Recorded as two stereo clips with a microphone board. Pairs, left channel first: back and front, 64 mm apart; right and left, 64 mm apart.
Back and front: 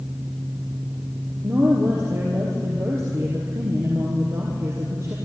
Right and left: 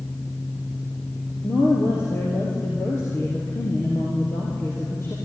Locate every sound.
1.4 s a woman speaking: 40° right, 3.5 m